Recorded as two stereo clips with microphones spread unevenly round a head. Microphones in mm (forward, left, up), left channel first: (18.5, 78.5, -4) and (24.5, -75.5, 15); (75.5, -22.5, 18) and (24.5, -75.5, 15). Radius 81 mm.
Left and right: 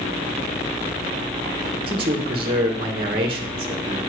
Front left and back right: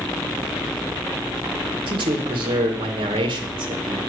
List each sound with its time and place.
1.9 s a man speaking: 150° right, 2 m